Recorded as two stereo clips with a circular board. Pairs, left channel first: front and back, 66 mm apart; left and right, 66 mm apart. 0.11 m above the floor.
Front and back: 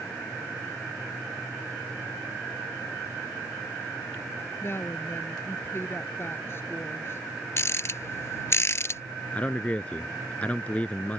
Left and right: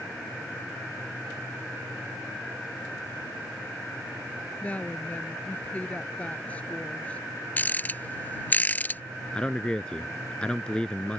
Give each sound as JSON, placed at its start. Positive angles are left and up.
{"t": 4.6, "sound": "a woman speaking", "azimuth_deg": 30}
{"t": 7.6, "sound": "a rattle", "azimuth_deg": 35}
{"t": 9.3, "sound": "a man speaking", "azimuth_deg": 35}